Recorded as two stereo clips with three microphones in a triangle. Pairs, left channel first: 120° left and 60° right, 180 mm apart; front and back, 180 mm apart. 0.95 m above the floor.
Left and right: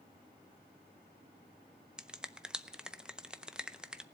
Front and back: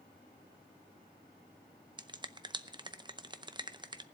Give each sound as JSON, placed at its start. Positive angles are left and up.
{"t": 2.0, "sound": "a finger snap", "azimuth_deg": -140, "distance_m": 0.5}